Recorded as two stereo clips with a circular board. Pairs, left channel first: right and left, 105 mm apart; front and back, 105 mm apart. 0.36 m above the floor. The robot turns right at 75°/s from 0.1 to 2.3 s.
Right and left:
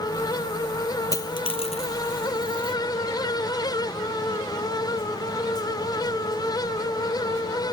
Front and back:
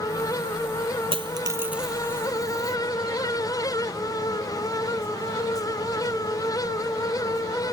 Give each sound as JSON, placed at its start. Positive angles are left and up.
{"t": 1.1, "sound": "a dropped coin", "azimuth_deg": -150}